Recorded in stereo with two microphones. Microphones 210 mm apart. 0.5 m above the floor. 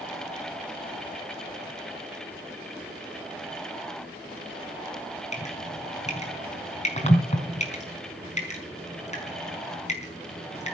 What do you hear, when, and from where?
5.3 s dripping: 35° left (ahead or behind), 5 m